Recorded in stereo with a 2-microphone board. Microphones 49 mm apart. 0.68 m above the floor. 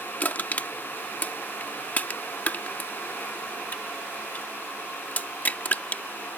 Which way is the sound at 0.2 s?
35° left (ahead or behind).